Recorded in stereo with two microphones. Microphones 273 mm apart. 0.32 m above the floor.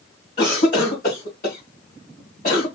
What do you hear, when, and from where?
0.4 s a cough: 35° left (ahead or behind), 3 m